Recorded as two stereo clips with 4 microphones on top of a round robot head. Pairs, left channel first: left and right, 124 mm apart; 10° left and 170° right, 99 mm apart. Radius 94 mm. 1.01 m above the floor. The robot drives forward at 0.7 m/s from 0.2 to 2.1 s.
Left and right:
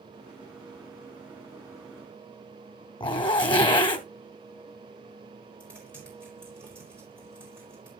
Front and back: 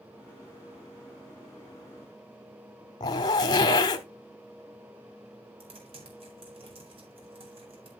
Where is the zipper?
50° left, 0.8 m.